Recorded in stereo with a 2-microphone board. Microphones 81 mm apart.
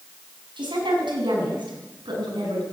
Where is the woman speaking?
80° right, 5.5 m; by 2.6 s 70° right (ahead or behind), 6.5 m.